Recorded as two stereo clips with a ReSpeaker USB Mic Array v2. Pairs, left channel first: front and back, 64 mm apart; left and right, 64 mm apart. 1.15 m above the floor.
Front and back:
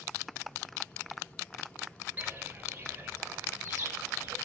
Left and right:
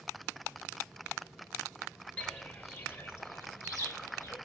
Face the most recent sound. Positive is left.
turn(degrees=125)